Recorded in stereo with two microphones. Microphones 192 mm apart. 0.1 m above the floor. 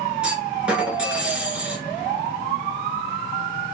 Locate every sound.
0.2 s a clunk: 5° right (ahead or behind), 1.1 m